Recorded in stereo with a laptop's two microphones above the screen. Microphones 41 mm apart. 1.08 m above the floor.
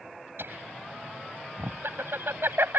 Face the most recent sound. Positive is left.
turn(degrees=-65)  # may be behind; listen again after turning